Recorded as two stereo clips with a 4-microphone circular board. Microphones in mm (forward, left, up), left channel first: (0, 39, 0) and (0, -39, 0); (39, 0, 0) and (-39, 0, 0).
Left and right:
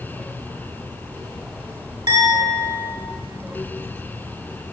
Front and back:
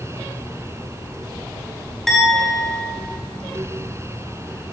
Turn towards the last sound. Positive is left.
turn(degrees=-85)